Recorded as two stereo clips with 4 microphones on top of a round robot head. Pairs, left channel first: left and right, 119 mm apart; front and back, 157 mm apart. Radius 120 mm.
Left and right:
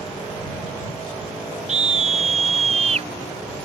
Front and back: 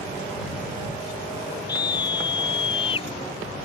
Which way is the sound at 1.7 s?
70° right.